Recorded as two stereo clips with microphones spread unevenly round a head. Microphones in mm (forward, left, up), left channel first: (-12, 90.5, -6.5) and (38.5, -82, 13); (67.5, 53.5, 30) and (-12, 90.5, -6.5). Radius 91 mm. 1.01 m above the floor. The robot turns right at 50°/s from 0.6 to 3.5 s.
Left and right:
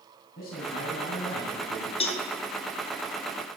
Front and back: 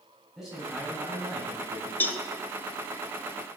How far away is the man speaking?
About 8 m.